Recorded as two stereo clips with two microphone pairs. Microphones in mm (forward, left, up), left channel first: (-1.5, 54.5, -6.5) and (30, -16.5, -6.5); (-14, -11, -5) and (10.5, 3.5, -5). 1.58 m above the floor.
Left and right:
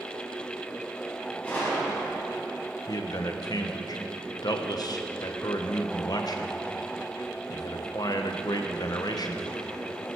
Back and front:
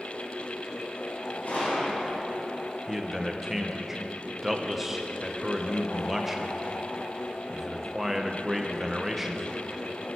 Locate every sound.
1.4 s a gunshot: 175° right, 4 m
2.9 s a man speaking: 110° left, 0.8 m